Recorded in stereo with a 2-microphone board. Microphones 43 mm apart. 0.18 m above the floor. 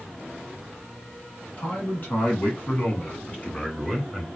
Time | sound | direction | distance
1.6 | a man speaking | 45° left (ahead or behind) | 2.5 m